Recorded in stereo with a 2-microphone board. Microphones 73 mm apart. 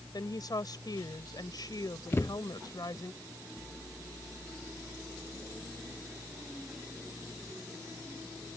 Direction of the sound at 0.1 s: 70° left (ahead or behind).